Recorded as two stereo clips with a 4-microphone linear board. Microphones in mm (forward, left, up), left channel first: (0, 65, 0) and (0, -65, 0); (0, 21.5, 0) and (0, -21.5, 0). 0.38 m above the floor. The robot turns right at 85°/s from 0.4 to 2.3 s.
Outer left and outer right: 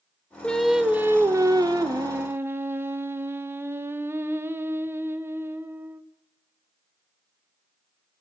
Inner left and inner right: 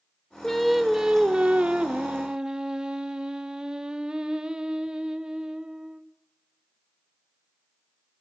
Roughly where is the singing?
Centre.